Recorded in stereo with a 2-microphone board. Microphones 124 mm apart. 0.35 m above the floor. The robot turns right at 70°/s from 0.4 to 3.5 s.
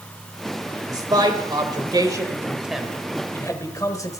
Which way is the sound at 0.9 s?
25° right (ahead or behind).